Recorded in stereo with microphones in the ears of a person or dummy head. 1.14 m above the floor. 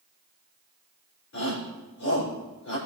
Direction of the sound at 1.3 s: 65° left (ahead or behind).